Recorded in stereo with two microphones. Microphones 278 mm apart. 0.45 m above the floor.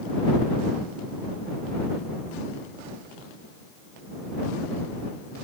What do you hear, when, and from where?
Only background noise.